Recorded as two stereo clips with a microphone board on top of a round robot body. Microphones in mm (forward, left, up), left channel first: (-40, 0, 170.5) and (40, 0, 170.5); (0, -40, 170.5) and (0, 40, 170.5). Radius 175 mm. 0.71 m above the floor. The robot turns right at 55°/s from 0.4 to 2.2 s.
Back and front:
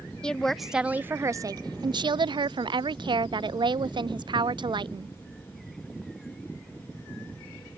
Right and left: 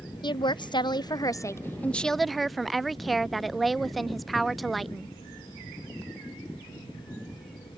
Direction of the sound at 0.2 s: 100° right.